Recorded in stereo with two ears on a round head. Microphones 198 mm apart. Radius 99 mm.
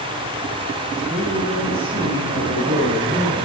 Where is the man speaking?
10° right (ahead or behind), 10 m.